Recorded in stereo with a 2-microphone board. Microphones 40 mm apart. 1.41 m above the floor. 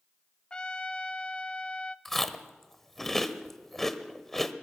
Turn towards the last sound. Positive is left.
turn(degrees=10)  # may be behind; listen again after turning